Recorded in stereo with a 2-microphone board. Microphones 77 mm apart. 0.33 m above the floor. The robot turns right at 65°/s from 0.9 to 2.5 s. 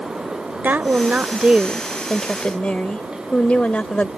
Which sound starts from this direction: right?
A woman speaking, at 0.6 s.